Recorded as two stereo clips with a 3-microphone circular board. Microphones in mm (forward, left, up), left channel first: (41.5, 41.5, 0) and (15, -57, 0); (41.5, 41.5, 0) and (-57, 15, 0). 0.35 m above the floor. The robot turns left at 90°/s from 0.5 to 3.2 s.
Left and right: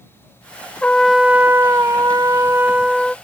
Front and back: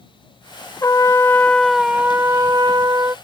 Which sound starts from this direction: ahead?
A trumpet, at 0.8 s.